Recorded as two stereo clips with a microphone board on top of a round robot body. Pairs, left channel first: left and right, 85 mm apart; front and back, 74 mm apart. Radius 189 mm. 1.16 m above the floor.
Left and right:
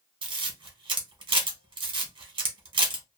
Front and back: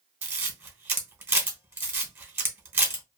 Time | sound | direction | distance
0.2 | a camera shutter | 115° right | 0.8 m